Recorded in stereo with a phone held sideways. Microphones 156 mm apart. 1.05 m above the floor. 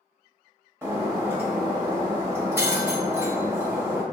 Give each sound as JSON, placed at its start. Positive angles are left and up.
{"t": 0.8, "sound": "breaking glass", "side_deg": -15, "distance_m": 0.9}